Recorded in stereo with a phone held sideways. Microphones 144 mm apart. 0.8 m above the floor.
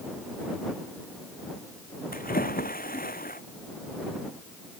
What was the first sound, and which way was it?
A splash, 75° left (ahead or behind).